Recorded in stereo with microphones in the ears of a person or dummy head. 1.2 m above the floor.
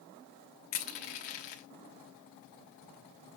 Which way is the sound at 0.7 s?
50° left (ahead or behind).